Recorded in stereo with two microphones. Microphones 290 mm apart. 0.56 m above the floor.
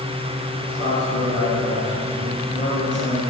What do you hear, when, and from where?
0.6 s a man speaking: 45° left (ahead or behind), 4.5 m; by 3.2 s 25° left (ahead or behind), 8 m